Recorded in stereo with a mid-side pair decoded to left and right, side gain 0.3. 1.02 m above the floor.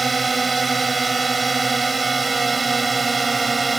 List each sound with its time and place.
0.0 s a drone: 30° right